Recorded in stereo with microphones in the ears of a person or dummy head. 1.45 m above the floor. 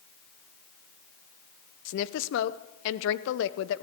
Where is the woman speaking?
70° left (ahead or behind), 0.7 m.